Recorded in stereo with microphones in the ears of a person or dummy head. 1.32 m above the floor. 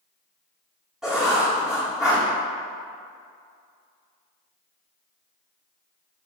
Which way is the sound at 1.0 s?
5° right (ahead or behind).